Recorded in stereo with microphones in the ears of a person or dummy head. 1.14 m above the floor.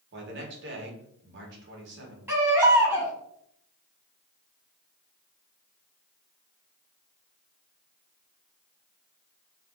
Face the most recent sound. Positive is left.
turn(degrees=-10)  # may be behind; listen again after turning